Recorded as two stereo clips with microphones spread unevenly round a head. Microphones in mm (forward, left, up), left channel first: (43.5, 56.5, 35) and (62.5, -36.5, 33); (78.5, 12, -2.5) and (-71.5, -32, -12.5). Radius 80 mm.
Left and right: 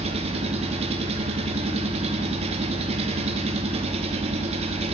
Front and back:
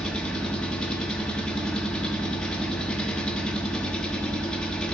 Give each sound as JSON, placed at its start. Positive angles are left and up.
{"t": 0.0, "sound": "an engine running", "azimuth_deg": -65, "distance_m": 0.8}